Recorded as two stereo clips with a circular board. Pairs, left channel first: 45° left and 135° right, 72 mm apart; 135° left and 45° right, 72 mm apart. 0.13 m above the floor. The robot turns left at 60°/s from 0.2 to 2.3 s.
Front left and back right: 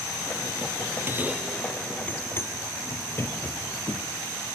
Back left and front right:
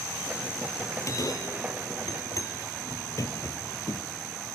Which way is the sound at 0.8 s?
170° right.